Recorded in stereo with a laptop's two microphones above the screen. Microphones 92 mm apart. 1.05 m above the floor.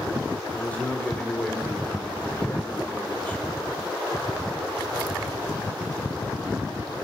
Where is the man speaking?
15° left (ahead or behind), 3.5 m.